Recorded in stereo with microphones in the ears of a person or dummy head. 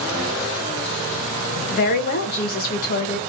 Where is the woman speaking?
40° left (ahead or behind), 1.0 m.